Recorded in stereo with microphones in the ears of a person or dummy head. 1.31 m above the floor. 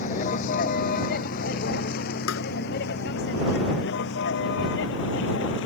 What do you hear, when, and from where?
0.0 s a vehicle: 45° left (ahead or behind); by 5.7 s 70° left (ahead or behind)
2.3 s tapping: 80° left